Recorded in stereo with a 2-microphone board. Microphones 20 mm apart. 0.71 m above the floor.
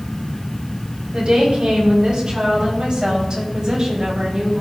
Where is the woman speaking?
60° right (ahead or behind), 5 m; by 4.6 s 40° right (ahead or behind), 4 m.